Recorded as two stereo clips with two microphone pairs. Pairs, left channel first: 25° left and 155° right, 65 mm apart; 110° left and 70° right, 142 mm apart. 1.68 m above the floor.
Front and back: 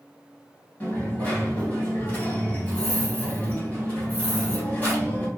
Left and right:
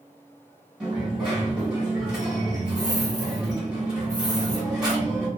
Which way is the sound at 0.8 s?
5° left.